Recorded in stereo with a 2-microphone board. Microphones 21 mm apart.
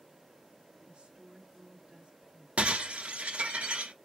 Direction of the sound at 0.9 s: 60° right (ahead or behind).